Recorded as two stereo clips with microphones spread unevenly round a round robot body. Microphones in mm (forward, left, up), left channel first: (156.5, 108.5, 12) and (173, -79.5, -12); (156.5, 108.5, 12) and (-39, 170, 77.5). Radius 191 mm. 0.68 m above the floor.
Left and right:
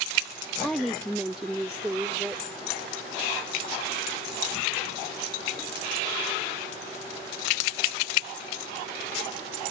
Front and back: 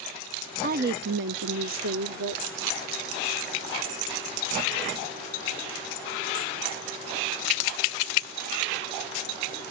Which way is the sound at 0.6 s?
165° right.